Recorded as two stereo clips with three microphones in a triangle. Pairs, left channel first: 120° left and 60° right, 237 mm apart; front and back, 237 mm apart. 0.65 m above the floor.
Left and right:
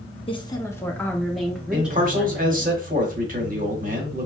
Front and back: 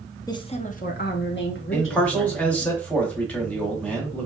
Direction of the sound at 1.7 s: 80° right.